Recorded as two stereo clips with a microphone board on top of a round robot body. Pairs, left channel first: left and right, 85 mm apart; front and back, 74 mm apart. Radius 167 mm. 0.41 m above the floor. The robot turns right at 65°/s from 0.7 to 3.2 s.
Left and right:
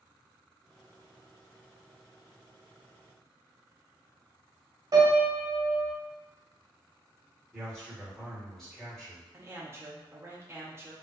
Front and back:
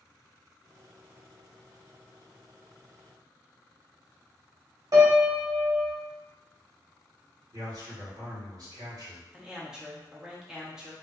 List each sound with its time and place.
4.9 s a piano: 140° right, 0.7 m
7.5 s a man speaking: 175° left, 1.5 m
9.3 s a man speaking: 105° right, 0.8 m